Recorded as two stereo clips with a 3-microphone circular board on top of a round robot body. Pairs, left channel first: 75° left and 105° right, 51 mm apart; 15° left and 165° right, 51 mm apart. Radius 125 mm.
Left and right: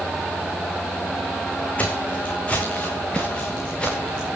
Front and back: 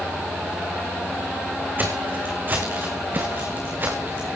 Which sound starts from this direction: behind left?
Footsteps, at 1.8 s.